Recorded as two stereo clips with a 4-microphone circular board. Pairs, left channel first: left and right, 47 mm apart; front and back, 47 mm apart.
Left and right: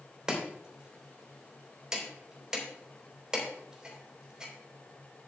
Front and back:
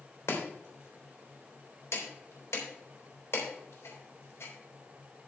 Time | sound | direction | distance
0.3 | chopping | 15° right | 3.5 m